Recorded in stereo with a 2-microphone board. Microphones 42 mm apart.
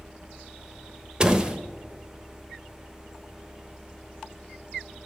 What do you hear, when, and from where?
1.2 s a door slam: 20° right (ahead or behind), 0.9 m